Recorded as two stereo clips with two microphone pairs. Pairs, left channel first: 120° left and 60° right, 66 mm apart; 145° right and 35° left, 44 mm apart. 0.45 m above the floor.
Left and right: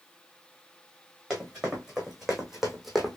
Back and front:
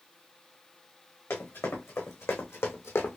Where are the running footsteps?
145° right, 2.5 m; by 3.2 s 150° right, 1.1 m.